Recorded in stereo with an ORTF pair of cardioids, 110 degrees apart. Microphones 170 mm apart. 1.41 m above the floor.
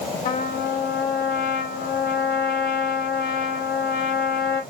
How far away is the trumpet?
About 2.5 m.